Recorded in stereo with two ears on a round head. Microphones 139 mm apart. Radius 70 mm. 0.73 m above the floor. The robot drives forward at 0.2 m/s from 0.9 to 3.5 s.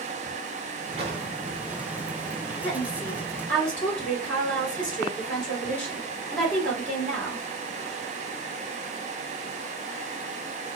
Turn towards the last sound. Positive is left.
turn(degrees=10)  # may be behind; listen again after turning